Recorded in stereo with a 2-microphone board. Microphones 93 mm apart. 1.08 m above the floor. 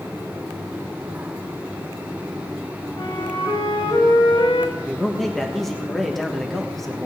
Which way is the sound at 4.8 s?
Centre (ahead or behind).